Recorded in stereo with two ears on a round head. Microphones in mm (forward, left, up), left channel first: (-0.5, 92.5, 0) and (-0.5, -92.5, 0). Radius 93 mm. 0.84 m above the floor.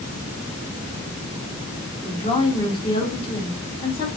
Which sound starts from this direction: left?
A woman speaking, at 2.0 s.